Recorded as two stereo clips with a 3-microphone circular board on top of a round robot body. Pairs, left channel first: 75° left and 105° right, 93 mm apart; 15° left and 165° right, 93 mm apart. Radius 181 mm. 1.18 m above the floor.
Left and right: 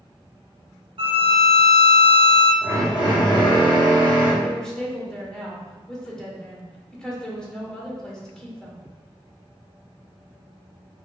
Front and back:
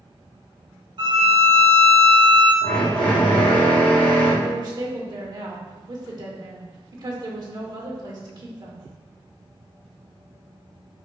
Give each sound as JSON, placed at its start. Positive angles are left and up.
{"t": 1.0, "sound": "a violin", "azimuth_deg": -135, "distance_m": 0.6}
{"t": 2.6, "sound": "a drill", "azimuth_deg": 45, "distance_m": 1.1}
{"t": 4.4, "sound": "a woman speaking", "azimuth_deg": 155, "distance_m": 1.2}